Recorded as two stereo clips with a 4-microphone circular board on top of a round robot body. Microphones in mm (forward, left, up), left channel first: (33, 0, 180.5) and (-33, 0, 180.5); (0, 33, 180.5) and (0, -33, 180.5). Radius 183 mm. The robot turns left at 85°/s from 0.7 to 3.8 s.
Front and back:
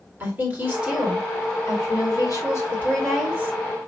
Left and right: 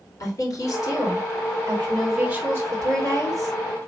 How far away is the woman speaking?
About 3 m.